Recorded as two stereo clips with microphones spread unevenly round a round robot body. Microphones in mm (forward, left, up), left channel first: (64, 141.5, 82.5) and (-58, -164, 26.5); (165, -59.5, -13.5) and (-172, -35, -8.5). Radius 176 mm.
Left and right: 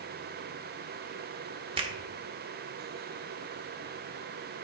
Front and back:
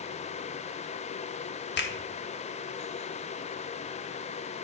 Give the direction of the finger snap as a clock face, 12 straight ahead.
2 o'clock.